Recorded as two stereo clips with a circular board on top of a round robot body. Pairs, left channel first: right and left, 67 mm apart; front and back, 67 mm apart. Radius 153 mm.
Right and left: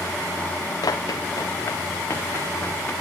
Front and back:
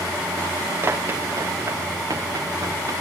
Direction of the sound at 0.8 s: 125° right.